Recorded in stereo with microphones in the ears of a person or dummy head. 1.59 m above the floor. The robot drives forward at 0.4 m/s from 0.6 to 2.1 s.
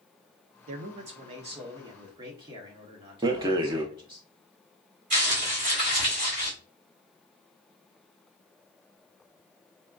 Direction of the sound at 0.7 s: 50° right (ahead or behind).